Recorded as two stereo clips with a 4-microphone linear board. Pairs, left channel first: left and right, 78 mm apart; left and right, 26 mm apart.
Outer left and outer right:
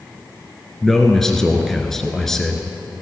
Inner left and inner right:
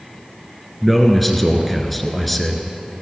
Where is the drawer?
I don't hear a drawer.